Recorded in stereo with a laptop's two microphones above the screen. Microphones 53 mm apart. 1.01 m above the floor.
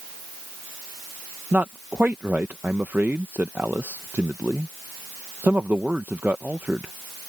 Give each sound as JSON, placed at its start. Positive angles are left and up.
{"t": 1.5, "sound": "a man speaking", "side_deg": -35}